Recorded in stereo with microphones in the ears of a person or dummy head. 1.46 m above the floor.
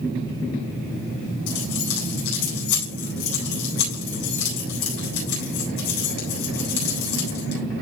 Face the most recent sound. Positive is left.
turn(degrees=65)  # may be behind; listen again after turning